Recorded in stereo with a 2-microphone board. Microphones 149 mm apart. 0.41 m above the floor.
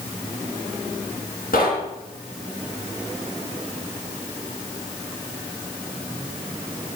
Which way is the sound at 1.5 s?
75° left (ahead or behind).